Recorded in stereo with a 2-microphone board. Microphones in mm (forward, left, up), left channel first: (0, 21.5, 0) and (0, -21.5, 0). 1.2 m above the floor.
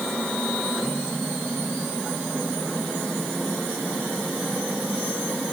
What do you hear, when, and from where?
Only background noise.